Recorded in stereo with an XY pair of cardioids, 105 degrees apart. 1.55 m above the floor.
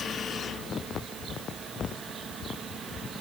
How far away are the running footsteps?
No running footsteps in this recording.